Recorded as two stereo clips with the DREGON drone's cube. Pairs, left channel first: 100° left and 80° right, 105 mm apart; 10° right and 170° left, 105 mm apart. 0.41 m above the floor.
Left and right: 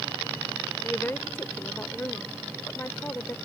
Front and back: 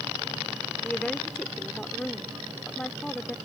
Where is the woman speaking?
60° left.